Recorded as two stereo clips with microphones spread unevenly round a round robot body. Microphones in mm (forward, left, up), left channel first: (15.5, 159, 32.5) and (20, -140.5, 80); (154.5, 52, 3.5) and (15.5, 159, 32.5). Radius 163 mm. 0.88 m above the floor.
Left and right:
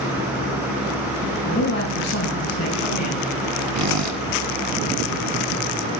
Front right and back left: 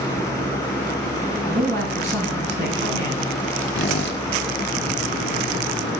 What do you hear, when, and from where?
1.4 s a man speaking: 140° left, 8.5 m; by 3.6 s 130° left, 8.5 m
3.8 s a squeak: 55° right, 1.6 m